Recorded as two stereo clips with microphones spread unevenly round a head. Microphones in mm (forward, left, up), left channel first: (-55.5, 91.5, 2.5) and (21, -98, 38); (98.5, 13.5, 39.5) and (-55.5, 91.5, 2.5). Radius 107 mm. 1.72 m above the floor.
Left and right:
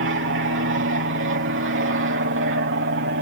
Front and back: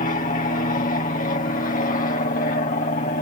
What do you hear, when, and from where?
0.0 s an aircraft: 75° right